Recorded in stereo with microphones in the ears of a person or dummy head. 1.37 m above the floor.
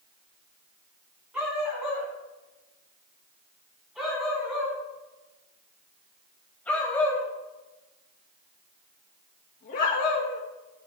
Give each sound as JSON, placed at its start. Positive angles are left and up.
{"t": 1.3, "sound": "a dog barking", "side_deg": -10, "distance_m": 5.5}